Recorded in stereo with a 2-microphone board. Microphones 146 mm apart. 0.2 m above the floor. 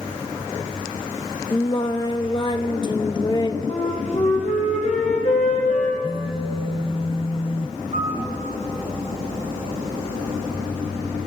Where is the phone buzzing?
40° left (ahead or behind), 0.9 m.